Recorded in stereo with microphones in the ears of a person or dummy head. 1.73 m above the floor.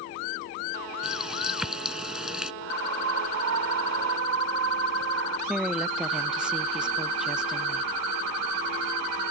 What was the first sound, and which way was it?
A running tap, centre (ahead or behind).